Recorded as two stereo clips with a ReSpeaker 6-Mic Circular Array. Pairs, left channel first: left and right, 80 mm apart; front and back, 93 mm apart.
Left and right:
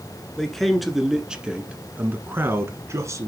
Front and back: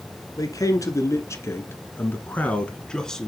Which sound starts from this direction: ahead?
A man speaking, at 0.4 s.